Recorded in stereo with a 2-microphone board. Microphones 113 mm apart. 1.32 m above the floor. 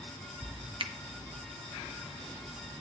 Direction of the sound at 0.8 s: 50° right (ahead or behind).